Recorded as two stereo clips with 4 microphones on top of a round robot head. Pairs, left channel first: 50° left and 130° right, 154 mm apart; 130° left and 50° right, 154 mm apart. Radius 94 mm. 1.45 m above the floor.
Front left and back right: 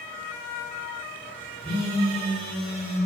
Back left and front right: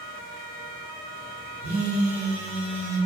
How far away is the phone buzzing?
About 1.2 m.